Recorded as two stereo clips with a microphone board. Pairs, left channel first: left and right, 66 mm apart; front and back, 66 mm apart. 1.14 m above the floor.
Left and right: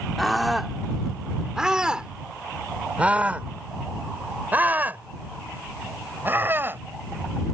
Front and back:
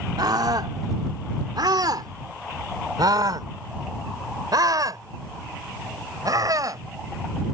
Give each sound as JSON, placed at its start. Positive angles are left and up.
{"t": 0.2, "sound": "a scream", "azimuth_deg": 180}